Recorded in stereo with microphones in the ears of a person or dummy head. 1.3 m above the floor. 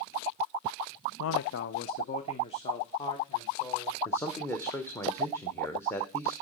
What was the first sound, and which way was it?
A man speaking, 80° left.